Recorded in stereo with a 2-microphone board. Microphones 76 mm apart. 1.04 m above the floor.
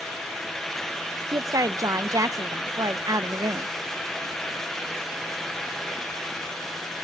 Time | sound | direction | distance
1.3 | a woman speaking | 55° right (ahead or behind) | 0.7 m